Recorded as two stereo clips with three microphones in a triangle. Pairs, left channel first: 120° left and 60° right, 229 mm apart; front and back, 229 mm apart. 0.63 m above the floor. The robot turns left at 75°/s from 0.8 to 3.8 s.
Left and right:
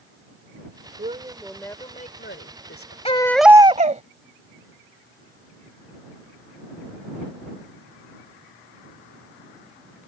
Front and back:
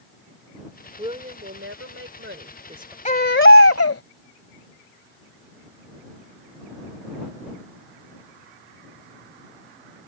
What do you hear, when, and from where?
1.0 s a woman speaking: 110° right; by 3.0 s 100° left
3.0 s a baby crying: 55° left; by 4.0 s straight ahead